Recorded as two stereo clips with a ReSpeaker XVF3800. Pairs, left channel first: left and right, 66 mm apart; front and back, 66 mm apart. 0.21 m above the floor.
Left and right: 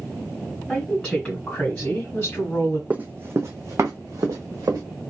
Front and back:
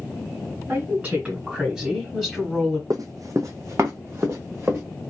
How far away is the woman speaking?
About 1.4 m.